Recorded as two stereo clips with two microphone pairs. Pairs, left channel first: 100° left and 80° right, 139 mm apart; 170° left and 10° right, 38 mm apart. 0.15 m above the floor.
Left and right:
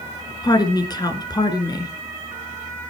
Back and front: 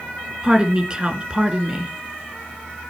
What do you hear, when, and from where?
0.4 s a woman speaking: 50° left, 2 m